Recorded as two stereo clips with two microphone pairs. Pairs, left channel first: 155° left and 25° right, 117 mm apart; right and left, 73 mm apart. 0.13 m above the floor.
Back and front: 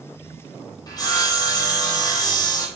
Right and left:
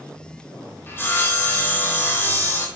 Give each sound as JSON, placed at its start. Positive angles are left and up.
{"t": 0.9, "sound": "sawing", "azimuth_deg": -150, "distance_m": 2.0}